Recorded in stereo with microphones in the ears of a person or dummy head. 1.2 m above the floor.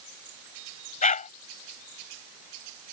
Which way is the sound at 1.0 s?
45° left (ahead or behind).